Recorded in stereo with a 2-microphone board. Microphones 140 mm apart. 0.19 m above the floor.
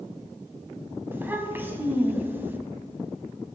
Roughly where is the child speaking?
Centre.